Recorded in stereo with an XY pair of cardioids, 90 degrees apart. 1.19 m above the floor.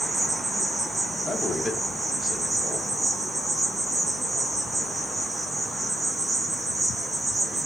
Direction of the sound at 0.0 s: 25° right.